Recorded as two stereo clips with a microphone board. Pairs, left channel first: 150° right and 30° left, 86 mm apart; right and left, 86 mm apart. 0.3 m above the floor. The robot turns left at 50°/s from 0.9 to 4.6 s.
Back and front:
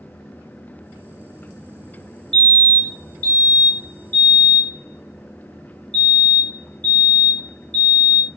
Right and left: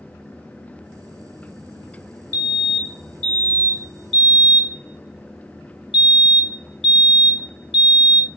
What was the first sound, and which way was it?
A fire alarm, 80° right.